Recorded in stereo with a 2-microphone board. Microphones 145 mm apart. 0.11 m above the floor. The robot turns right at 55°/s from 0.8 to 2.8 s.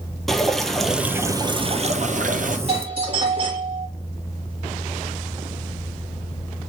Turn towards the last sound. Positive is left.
turn(degrees=-40)  # may be behind; listen again after turning